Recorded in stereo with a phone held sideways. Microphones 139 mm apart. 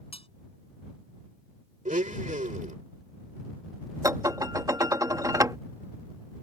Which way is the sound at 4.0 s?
25° right (ahead or behind).